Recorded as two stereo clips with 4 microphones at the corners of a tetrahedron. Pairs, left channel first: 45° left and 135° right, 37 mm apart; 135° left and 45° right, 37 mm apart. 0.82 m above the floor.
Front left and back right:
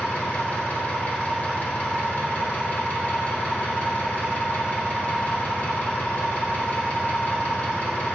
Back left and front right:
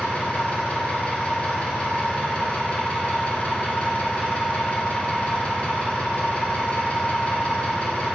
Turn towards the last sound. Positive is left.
turn(degrees=90)